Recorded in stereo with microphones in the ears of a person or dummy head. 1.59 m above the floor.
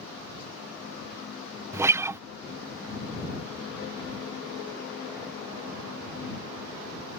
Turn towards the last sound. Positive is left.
turn(degrees=-10)  # may be behind; listen again after turning